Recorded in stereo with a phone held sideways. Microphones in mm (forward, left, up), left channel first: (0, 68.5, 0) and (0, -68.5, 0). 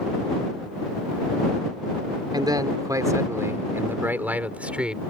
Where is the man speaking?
30° right (ahead or behind); by 5.0 s 5° right (ahead or behind).